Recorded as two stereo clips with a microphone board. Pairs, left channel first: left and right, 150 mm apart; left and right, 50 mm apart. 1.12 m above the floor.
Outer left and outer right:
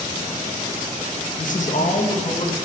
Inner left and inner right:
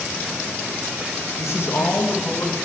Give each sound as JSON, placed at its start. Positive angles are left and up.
{"t": 1.4, "sound": "a man speaking", "side_deg": 65, "distance_m": 0.8}